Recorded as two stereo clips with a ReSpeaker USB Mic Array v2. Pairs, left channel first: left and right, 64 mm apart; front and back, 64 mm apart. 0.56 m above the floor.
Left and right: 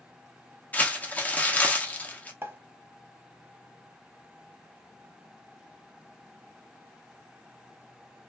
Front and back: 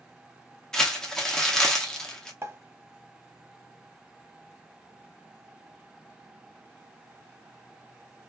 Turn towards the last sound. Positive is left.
turn(degrees=-135)